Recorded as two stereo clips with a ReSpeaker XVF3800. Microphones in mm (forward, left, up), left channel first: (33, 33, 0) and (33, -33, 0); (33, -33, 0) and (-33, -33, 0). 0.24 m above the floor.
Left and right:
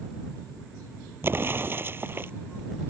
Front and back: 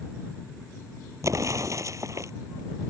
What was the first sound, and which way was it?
An explosion, 145° right.